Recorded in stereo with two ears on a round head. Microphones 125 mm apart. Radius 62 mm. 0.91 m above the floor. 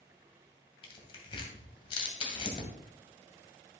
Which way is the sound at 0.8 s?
40° left (ahead or behind).